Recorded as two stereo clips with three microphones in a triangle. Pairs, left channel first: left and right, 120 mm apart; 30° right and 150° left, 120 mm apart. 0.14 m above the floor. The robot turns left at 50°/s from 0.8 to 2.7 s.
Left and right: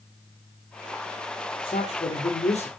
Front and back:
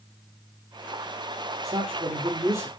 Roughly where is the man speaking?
Behind left.